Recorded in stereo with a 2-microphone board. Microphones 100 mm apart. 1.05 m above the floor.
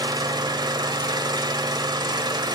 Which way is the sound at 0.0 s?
45° right (ahead or behind).